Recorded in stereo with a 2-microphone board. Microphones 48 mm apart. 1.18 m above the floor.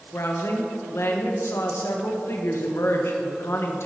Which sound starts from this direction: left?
A woman speaking, at 0.1 s.